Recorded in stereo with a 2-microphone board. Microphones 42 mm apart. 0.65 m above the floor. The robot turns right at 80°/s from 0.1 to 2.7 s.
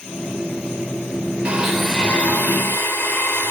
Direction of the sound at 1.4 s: 25° right.